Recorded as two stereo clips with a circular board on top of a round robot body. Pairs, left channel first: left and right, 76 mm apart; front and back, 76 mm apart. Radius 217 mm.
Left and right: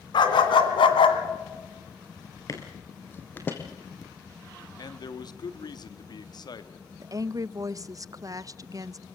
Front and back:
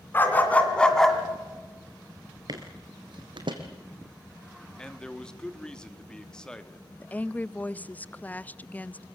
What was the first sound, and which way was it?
A dog barking, 65° left.